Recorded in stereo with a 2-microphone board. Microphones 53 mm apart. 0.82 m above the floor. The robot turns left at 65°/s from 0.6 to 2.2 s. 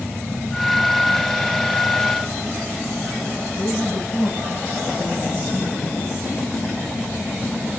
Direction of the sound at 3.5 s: 75° left (ahead or behind).